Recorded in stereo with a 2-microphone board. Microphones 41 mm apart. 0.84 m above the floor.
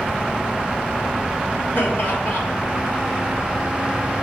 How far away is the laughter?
About 3 m.